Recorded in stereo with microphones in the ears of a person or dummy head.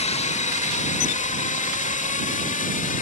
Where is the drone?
35° left (ahead or behind); by 3.0 s 40° left (ahead or behind).